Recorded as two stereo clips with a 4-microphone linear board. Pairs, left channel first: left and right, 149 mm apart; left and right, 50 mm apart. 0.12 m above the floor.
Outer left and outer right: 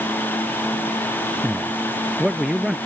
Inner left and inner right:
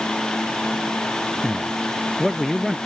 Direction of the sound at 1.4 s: 5° right (ahead or behind).